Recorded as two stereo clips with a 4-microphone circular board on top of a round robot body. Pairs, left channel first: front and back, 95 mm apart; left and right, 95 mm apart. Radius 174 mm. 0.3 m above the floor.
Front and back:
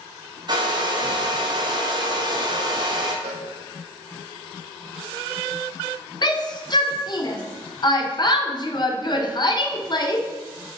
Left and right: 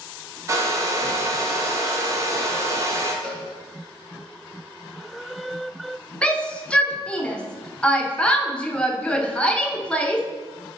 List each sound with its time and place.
0.5 s a hair dryer: 145° right, 1.4 m
3.2 s a cowbell: 170° left, 0.8 m
6.2 s a shout: 15° left, 1.2 m